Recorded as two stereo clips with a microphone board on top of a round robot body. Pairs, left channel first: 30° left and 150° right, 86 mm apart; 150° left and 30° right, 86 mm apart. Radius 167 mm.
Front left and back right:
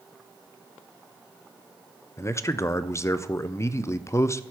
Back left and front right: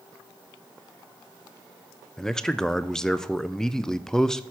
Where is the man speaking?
70° left, 0.5 m.